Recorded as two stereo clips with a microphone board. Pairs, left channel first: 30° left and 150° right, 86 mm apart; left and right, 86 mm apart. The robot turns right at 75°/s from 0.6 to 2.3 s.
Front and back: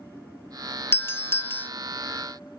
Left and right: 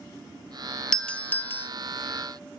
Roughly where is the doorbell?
Ahead.